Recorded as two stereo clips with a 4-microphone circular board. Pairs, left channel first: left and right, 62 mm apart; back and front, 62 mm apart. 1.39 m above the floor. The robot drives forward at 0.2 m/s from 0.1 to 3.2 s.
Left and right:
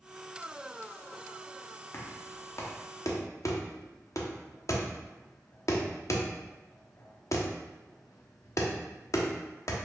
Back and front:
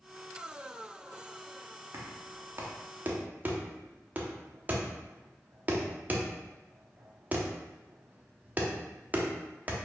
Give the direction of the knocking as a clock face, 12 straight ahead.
11 o'clock.